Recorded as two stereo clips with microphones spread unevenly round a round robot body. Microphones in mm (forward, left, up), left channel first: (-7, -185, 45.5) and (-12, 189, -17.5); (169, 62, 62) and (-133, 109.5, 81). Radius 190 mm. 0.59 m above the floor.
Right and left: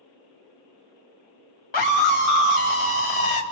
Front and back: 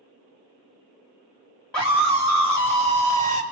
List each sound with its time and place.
1.7 s a scream: 95° right, 3.5 m; by 3.4 s 90° right, 2.5 m